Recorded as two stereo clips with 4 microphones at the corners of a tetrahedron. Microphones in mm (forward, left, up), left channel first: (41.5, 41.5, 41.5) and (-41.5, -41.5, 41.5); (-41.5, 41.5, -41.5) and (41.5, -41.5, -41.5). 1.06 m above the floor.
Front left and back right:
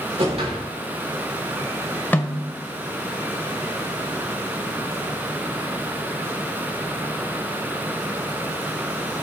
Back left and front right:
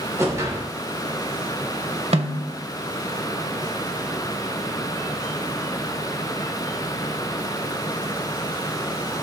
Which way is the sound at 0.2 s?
110° right.